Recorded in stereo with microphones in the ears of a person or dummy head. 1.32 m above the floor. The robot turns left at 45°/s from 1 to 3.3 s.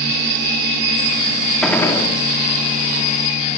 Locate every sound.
1.6 s a gunshot: 5° left (ahead or behind), 2 m; by 2.1 s 30° left (ahead or behind), 2 m